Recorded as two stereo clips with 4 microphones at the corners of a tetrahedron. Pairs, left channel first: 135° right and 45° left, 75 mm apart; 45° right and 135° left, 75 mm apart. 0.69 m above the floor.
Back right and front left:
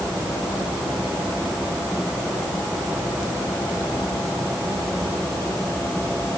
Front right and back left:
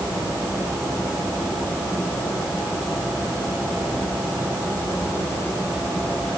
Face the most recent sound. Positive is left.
No sound to turn to.